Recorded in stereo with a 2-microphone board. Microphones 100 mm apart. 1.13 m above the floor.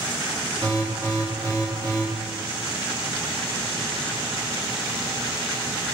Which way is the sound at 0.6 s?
45° right (ahead or behind).